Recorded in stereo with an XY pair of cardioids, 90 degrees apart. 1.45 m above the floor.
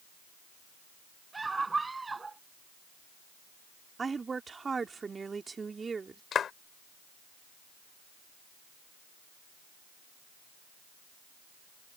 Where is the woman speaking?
35° right.